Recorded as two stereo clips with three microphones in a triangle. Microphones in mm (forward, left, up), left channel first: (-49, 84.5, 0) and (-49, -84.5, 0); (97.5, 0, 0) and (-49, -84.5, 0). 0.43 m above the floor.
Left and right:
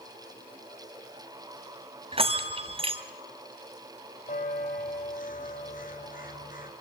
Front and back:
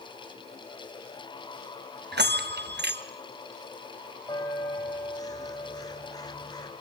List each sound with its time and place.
2.1 s a bell: 145° right, 1.1 m
4.3 s a bell: 90° left, 1.9 m